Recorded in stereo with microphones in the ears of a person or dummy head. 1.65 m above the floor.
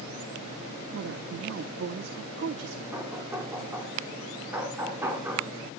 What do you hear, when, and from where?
0.9 s a woman speaking: 65° right (ahead or behind), 1.0 m
2.9 s knocking: 15° right (ahead or behind), 3 m